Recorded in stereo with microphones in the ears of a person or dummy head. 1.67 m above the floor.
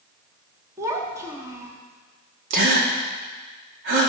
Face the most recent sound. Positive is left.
turn(degrees=-55)  # may be behind; listen again after turning